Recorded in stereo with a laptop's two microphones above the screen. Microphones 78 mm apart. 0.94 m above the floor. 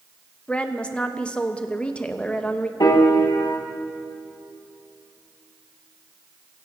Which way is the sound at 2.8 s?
65° left (ahead or behind).